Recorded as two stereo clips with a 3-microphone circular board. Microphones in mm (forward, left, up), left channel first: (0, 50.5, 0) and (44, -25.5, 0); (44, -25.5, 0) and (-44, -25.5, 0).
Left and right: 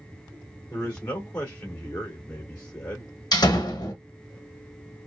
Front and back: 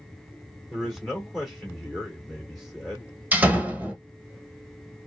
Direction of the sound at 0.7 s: 80° left.